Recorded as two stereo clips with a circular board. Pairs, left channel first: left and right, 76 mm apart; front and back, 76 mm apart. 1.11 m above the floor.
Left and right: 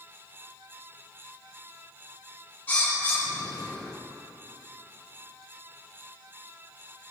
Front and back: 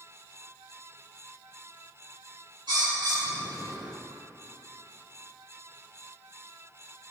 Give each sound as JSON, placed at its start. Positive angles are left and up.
{"t": 2.7, "sound": "a bird", "azimuth_deg": 160, "distance_m": 1.8}